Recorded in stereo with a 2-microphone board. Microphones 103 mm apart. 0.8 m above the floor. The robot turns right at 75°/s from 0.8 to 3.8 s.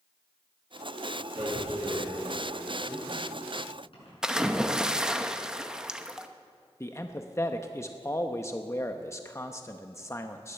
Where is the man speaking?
25° left (ahead or behind), 0.7 m.